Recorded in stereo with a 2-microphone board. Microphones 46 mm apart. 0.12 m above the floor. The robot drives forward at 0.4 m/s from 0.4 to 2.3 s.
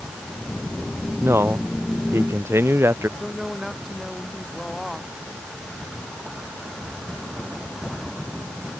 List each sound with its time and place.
1.2 s a man speaking: 75° right (ahead or behind)
3.2 s a woman speaking: 5° right (ahead or behind)